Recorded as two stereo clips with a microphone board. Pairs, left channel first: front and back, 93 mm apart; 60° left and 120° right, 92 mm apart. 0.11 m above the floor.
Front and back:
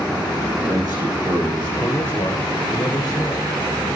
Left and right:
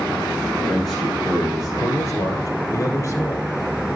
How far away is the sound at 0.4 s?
About 7 m.